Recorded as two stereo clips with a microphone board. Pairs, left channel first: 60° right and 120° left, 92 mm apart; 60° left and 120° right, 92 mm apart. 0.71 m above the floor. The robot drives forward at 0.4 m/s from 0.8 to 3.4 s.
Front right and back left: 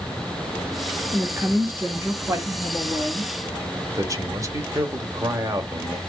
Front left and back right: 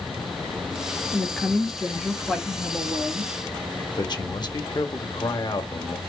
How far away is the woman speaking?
About 1.0 m.